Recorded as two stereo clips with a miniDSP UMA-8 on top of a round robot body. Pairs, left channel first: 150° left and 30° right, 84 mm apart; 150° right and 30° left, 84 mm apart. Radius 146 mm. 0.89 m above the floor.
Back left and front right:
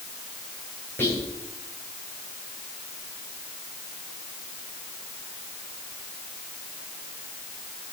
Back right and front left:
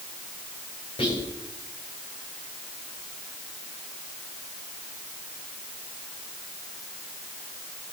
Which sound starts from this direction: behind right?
Whispering, at 1.0 s.